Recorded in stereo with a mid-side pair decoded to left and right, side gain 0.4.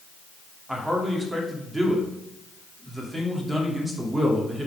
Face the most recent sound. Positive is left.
turn(degrees=-20)